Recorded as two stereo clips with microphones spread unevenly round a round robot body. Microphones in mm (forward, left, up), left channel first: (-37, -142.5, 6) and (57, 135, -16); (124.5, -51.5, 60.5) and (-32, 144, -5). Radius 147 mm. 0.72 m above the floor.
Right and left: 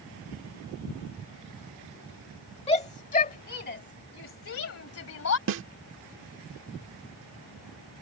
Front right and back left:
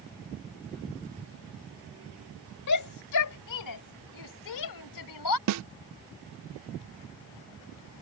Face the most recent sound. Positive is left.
turn(degrees=120)